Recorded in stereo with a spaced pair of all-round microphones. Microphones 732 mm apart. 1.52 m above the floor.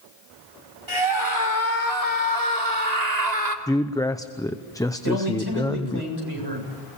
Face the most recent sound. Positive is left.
turn(degrees=-35)  # may be behind; listen again after turning